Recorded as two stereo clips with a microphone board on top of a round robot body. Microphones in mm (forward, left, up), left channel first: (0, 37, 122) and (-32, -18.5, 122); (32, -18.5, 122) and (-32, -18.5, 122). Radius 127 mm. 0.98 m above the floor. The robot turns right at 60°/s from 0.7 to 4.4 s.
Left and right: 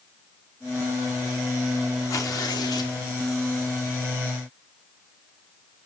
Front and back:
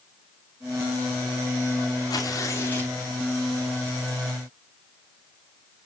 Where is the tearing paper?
20° left, 2.5 m; by 3.0 s 70° left, 2.5 m.